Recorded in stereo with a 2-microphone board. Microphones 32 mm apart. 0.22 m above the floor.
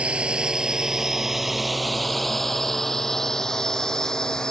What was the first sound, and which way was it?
A drone, 40° right (ahead or behind).